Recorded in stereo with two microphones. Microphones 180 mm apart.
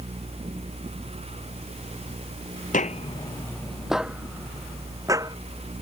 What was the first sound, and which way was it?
Footsteps, 50° left (ahead or behind).